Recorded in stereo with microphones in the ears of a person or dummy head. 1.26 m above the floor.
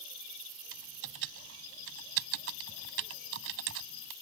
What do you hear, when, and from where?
0.7 s typing on a keyboard: 70° right (ahead or behind)